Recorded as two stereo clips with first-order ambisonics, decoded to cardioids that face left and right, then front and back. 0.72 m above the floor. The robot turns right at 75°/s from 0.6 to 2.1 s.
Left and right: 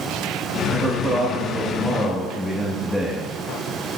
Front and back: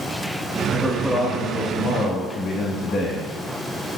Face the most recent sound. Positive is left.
turn(degrees=5)